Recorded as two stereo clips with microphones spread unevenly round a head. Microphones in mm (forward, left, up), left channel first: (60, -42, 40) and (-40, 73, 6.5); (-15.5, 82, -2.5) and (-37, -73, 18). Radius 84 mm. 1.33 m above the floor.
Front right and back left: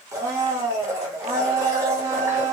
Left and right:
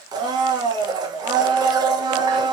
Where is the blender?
150° right, 0.6 m.